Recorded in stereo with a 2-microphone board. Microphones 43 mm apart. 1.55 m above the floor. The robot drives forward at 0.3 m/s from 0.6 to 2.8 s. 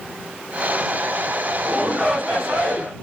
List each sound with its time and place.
1.6 s a shout: 10° left (ahead or behind), 3 m; by 2.9 s 5° left (ahead or behind), 3 m